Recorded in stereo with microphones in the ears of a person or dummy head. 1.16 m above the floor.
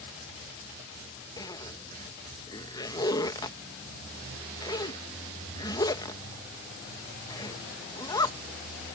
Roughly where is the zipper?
Left.